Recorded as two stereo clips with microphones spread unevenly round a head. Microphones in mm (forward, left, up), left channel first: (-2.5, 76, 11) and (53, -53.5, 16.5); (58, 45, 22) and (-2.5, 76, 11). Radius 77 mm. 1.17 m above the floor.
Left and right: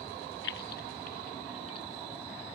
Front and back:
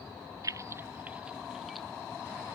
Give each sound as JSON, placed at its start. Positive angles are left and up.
{"t": 0.4, "sound": "keys jangling", "azimuth_deg": 115}